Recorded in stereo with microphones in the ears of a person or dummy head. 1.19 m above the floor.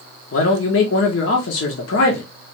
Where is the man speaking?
70° left (ahead or behind), 0.9 m.